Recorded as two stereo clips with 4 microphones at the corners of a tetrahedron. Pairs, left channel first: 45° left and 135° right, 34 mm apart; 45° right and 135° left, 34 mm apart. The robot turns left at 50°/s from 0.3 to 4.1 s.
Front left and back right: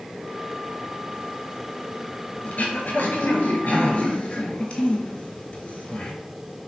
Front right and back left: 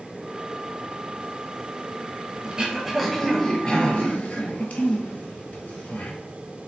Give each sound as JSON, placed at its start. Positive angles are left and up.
{"t": 2.4, "sound": "throat clearing", "azimuth_deg": 75, "distance_m": 0.8}